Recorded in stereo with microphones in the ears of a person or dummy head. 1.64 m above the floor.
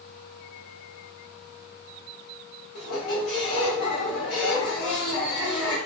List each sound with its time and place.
2.8 s a squeak: 60° left (ahead or behind), 1.3 m